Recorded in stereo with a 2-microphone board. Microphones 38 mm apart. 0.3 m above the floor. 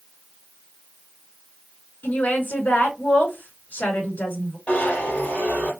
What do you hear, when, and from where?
2.0 s a woman speaking: 45° left (ahead or behind), 3.5 m
4.7 s a zipper: 35° left (ahead or behind), 3.5 m